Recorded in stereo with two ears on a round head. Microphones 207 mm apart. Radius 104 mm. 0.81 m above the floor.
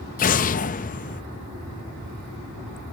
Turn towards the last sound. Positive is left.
turn(degrees=35)  # may be behind; listen again after turning